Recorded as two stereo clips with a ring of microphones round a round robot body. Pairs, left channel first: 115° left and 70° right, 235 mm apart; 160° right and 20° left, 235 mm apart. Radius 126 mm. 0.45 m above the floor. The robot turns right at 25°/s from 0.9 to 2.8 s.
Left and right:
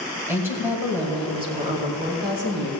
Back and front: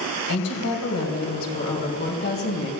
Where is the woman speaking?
150° right, 2.5 m; by 2.7 s 105° right, 2.5 m.